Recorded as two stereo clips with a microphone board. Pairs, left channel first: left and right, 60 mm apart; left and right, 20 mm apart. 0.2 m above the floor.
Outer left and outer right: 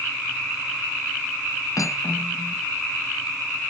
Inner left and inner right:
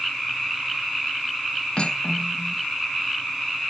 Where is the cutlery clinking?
60° left (ahead or behind), 1.2 m.